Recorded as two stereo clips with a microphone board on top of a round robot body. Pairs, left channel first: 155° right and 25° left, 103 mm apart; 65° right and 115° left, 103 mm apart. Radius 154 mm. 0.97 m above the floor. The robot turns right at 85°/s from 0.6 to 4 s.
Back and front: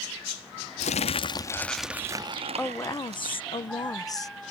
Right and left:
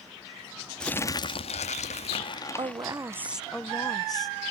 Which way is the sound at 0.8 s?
150° right.